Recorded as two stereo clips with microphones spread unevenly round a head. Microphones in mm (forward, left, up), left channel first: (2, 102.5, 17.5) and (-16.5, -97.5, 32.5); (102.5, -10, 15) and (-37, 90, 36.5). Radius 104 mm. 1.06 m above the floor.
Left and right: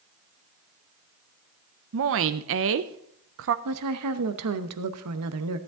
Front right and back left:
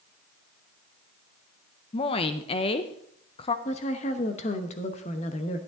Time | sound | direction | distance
1.9 | a woman speaking | 90° right | 0.6 m
3.6 | a woman speaking | 95° right | 0.9 m